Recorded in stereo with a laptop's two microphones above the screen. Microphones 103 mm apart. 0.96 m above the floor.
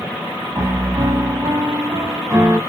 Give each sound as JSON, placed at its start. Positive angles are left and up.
{"t": 0.6, "sound": "a piano", "side_deg": -35, "distance_m": 1.4}